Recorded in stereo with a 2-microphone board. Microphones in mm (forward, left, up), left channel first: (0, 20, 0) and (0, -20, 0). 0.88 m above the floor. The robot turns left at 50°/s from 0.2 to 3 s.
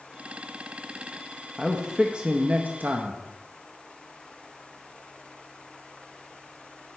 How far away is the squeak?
I don't hear a squeak.